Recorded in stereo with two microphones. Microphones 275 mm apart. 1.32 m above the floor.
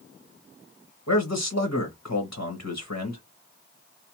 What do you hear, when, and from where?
1.1 s a man speaking: 70° left (ahead or behind), 1.3 m